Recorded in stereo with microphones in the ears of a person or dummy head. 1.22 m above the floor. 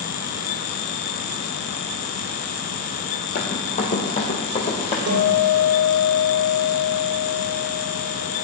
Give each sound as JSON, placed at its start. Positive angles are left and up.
{"t": 3.4, "sound": "running footsteps", "side_deg": 40, "distance_m": 2.5}
{"t": 5.1, "sound": "a guitar", "side_deg": -85, "distance_m": 3.5}